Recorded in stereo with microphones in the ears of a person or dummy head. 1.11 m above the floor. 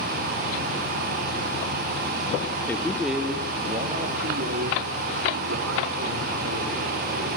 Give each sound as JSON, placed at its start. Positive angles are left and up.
{"t": 2.7, "sound": "a man speaking", "side_deg": 10, "distance_m": 2.0}